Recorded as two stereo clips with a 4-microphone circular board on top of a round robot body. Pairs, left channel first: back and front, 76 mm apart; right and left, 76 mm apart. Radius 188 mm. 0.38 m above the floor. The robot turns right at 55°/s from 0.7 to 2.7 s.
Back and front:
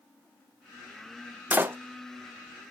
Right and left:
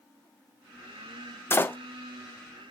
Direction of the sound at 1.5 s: 55° right.